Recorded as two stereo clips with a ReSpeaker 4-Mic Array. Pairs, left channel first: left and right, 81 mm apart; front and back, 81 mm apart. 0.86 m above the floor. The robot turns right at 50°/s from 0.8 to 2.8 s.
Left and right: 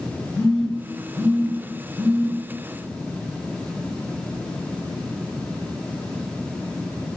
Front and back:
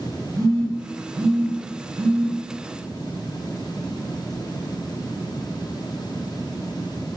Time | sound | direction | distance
0.3 | a phone buzzing | 160° left | 1.2 m